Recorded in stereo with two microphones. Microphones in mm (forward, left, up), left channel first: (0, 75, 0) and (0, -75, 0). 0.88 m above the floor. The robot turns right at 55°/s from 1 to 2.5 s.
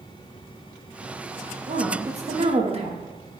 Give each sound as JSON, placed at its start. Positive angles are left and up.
{"t": 1.7, "sound": "a woman speaking", "azimuth_deg": -105, "distance_m": 1.0}